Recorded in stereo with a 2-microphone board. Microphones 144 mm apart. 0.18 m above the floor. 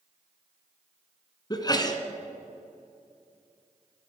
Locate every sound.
1.5 s a sneeze: 30° left (ahead or behind), 1.6 m